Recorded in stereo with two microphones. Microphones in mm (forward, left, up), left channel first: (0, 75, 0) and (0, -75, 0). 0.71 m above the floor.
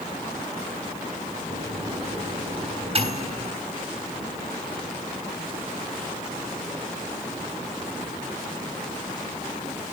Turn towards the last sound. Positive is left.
turn(degrees=-40)  # may be behind; listen again after turning